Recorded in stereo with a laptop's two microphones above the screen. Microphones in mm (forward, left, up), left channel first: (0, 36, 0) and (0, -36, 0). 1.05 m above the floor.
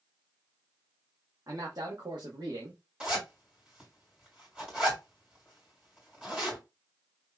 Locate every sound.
1.5 s a man speaking: 50° right (ahead or behind), 1.5 m; by 2.8 s 65° right (ahead or behind), 1.4 m
3.0 s a zipper: 15° right (ahead or behind), 2 m